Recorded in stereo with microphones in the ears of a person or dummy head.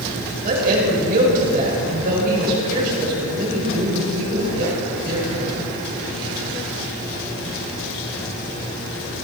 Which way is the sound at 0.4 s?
55° right (ahead or behind).